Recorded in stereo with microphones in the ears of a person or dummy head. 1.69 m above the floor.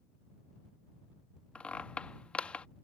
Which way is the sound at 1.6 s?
Centre (ahead or behind).